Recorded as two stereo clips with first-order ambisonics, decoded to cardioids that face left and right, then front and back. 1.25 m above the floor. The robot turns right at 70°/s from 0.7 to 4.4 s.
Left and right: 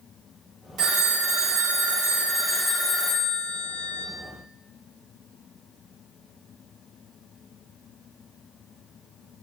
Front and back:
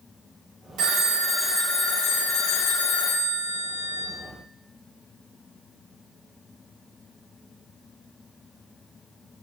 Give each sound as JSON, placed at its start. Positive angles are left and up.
{"t": 0.8, "sound": "a phone ringing", "azimuth_deg": -140, "distance_m": 0.8}